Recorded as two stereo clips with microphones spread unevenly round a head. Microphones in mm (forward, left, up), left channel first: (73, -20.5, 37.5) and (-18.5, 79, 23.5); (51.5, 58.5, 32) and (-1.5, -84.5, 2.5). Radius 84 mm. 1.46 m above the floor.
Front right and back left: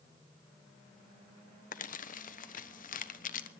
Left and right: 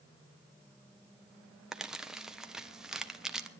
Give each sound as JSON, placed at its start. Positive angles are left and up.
{"t": 1.7, "sound": "crumpling", "azimuth_deg": -25, "distance_m": 1.1}